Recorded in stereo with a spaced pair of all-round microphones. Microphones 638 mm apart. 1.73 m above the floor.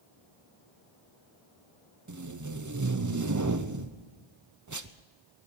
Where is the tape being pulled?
30° right (ahead or behind), 0.7 m.